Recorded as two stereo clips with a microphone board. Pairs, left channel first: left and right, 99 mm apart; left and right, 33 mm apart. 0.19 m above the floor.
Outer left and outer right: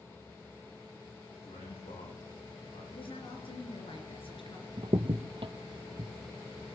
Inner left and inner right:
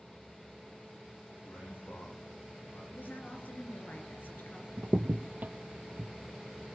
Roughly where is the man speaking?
Left.